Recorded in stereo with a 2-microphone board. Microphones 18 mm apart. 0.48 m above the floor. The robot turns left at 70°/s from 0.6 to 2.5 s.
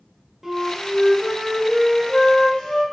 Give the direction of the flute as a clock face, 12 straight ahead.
5 o'clock.